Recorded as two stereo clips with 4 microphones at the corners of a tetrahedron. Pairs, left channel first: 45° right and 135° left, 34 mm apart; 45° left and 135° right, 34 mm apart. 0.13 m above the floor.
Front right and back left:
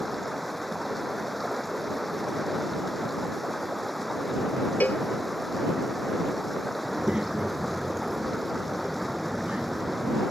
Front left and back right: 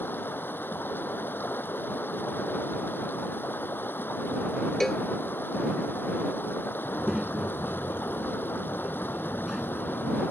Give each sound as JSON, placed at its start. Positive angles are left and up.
{"t": 0.0, "sound": "running water", "azimuth_deg": 45}
{"t": 4.8, "sound": "a cowbell", "azimuth_deg": -30}
{"t": 6.8, "sound": "a child speaking", "azimuth_deg": 155}